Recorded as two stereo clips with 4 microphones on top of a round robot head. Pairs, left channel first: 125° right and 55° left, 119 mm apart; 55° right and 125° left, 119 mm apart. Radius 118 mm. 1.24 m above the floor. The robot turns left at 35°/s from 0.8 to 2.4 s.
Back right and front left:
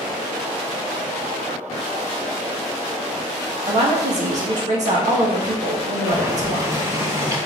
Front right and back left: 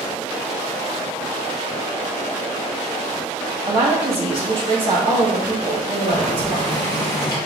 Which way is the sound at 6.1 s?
5° left.